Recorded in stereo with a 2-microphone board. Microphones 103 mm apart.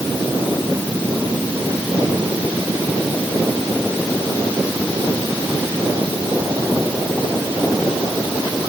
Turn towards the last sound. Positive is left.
No sound to turn to.